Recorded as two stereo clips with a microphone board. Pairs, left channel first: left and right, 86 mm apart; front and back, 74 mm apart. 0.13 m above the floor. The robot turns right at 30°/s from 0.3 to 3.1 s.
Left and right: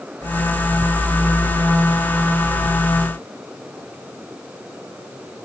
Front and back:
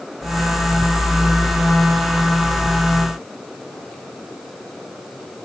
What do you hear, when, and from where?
Only background noise.